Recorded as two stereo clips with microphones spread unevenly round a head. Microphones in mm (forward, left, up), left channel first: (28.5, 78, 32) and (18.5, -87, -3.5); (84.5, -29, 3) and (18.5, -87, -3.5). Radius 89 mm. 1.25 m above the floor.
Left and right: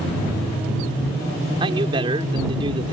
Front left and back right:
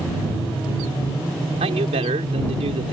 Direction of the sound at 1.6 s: 160° right.